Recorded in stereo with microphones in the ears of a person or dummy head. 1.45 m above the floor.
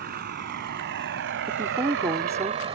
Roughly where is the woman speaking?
Centre.